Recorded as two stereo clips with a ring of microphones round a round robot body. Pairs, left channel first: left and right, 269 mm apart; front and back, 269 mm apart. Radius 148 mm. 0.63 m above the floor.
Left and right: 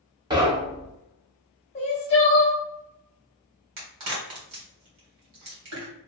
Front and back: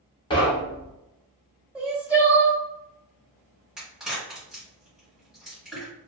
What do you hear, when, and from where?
0.3 s knocking: 40° right, 0.7 m
1.8 s crying: 100° left, 1.1 m
3.8 s a crack: 90° right, 1.3 m